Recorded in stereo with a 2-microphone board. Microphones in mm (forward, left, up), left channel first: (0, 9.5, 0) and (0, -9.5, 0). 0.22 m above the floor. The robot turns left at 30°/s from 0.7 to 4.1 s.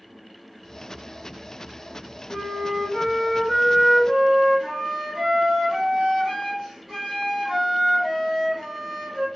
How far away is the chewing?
No chewing in this recording.